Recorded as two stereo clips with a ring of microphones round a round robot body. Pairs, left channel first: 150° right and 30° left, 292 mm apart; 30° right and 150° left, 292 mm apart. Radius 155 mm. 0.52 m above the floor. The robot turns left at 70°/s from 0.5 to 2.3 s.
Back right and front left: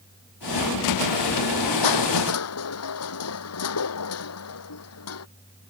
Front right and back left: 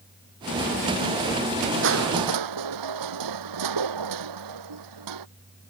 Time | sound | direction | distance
1.8 | crushing | 160° right | ?